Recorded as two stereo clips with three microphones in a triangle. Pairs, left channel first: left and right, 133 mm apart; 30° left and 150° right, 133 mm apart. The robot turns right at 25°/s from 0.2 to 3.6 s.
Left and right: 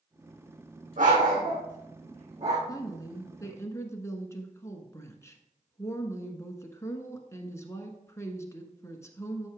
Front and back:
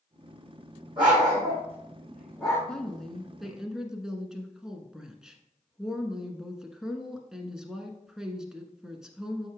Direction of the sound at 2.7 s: 105° left.